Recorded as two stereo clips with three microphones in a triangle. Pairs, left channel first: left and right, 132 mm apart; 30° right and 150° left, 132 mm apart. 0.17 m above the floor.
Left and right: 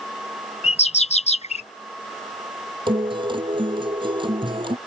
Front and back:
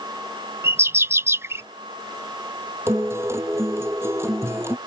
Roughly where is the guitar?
Behind right.